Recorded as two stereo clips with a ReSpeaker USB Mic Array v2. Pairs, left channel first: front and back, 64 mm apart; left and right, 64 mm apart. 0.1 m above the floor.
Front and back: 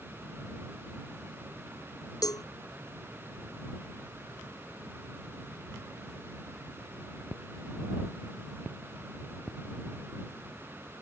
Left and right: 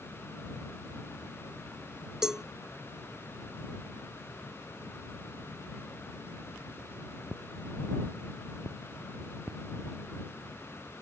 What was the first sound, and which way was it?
A cowbell, 10° right.